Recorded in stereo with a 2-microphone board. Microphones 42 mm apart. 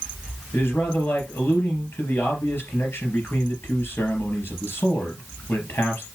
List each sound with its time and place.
0.5 s a man speaking: 65° left (ahead or behind), 3.5 m